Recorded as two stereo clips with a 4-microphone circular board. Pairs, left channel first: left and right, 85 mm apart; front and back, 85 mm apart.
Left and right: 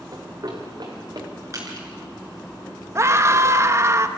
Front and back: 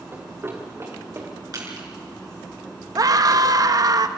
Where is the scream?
145° right, 1.2 m.